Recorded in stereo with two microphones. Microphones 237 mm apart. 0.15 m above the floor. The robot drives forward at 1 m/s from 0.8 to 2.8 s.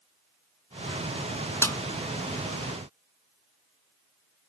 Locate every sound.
1.6 s a snare drum: 10° left (ahead or behind); by 1.8 s 15° left (ahead or behind)